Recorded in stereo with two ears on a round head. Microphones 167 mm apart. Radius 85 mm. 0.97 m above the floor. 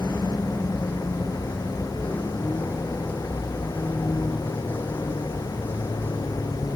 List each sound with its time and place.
0.0 s a vehicle: 5° left (ahead or behind); by 6.8 s 10° left (ahead or behind)